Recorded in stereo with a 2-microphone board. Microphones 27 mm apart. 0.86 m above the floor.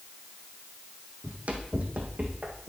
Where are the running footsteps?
60° right (ahead or behind), 1.6 m; by 2.7 s 50° right (ahead or behind), 2.0 m.